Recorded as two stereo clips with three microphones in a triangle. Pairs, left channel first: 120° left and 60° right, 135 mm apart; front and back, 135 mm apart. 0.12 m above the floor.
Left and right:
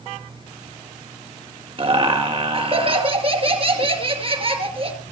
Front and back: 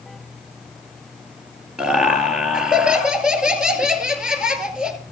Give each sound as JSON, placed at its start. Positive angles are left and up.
{"t": 1.8, "sound": "laughter", "azimuth_deg": -95, "distance_m": 2.0}